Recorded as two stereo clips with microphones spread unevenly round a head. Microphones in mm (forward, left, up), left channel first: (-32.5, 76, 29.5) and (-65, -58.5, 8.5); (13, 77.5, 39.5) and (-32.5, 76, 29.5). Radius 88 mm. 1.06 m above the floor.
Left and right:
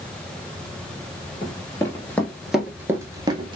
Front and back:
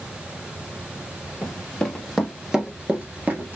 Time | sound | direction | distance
1.4 | running footsteps | 40° left | 1.3 m